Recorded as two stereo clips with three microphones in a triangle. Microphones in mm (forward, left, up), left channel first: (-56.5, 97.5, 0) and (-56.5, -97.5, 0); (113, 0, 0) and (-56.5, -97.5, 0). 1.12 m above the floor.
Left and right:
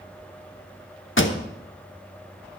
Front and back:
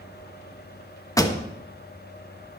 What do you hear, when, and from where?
1.2 s a pop: 100° left, 1.0 m